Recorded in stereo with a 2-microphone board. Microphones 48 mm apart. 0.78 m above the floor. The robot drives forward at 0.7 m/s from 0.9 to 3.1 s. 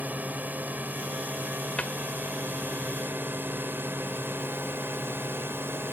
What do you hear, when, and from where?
0.0 s a drone: 35° right (ahead or behind); by 6.0 s 55° right (ahead or behind)
1.8 s a cupboard door: 25° left (ahead or behind)